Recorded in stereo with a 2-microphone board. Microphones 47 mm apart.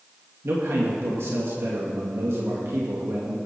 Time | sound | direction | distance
0.4 | a man speaking | 65° right (ahead or behind) | 2.5 m